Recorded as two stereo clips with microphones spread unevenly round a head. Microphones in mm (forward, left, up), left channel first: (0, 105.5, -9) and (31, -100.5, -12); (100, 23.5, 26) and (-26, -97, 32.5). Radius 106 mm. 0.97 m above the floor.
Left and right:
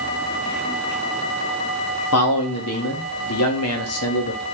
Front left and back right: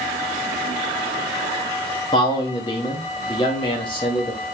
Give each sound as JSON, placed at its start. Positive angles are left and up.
{"t": 2.1, "sound": "a man speaking", "azimuth_deg": 110, "distance_m": 1.6}